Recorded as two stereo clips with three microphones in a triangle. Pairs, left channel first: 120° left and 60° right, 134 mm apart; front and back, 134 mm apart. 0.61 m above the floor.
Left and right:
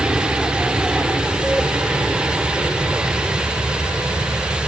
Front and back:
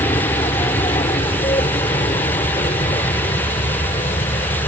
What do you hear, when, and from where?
0.0 s an aircraft: 20° left